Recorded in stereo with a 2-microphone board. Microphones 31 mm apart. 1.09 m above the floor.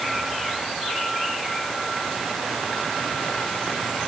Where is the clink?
No clink in this recording.